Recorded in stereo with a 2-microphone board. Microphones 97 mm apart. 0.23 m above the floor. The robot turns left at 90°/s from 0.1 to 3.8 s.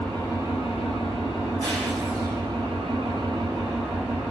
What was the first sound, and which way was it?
An engine running, 165° left.